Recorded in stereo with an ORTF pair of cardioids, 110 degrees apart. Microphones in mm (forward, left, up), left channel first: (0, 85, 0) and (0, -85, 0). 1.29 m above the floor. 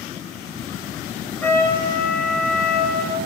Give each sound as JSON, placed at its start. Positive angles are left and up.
{"t": 1.4, "sound": "a trumpet", "azimuth_deg": 10, "distance_m": 1.7}